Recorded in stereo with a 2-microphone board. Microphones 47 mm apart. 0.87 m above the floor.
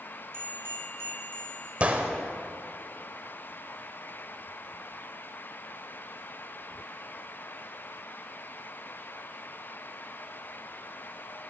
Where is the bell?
50° right (ahead or behind), 1.5 m.